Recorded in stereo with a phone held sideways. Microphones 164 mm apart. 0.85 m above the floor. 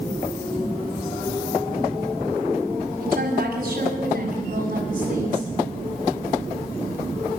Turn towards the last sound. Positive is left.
turn(degrees=-55)  # may be behind; listen again after turning